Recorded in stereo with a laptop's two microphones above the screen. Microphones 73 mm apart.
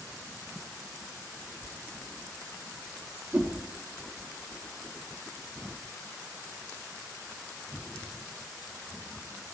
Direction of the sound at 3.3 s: 20° right (ahead or behind).